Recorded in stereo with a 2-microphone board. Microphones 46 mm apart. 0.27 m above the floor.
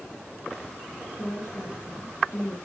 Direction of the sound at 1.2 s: 70° left (ahead or behind).